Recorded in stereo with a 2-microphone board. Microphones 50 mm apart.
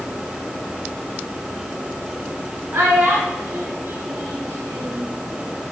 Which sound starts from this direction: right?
A child speaking, at 2.7 s.